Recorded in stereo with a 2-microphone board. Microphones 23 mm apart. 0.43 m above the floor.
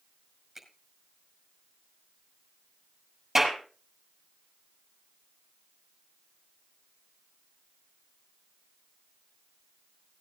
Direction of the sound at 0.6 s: 15° right (ahead or behind).